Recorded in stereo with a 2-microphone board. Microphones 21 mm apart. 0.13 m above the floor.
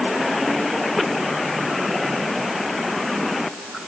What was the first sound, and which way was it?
Only background noise.